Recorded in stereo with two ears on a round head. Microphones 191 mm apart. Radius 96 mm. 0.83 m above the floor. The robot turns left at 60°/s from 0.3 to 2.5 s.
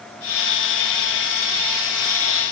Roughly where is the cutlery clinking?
No cutlery clinking in this recording.